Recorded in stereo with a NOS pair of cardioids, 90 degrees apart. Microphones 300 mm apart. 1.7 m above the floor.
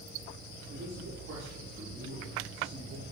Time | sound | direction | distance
0.7 | a man speaking | 60° right | 5.5 m